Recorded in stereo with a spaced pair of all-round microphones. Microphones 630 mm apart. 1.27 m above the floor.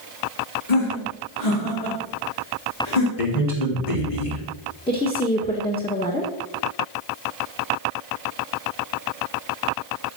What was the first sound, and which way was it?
Laughter, 80° left.